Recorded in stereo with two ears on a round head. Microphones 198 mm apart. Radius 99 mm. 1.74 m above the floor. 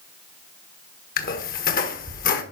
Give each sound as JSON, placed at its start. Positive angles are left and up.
{"t": 1.2, "sound": "a squeak", "side_deg": 40, "distance_m": 1.4}